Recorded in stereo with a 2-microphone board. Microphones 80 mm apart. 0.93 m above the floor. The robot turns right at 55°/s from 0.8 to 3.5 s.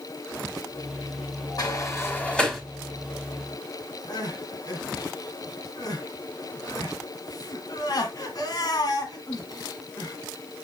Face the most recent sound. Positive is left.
turn(degrees=55)  # may be behind; listen again after turning